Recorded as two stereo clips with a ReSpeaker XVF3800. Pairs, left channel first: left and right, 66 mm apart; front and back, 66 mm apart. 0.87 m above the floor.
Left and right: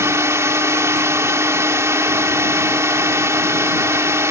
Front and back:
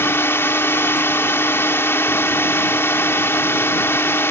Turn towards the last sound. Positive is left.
turn(degrees=-50)